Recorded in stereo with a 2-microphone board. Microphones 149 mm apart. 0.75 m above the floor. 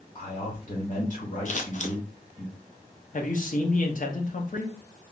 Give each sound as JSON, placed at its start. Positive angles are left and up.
{"t": 0.1, "sound": "a man speaking", "side_deg": 55, "distance_m": 2.5}
{"t": 1.4, "sound": "scissors", "side_deg": 55, "distance_m": 0.7}
{"t": 3.1, "sound": "a man speaking", "side_deg": 60, "distance_m": 0.8}